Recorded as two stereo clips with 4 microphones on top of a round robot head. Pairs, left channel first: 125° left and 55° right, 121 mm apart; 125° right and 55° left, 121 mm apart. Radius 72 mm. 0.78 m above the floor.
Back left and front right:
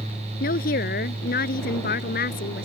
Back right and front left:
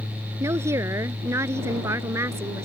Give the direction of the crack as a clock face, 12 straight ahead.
I don't hear a crack.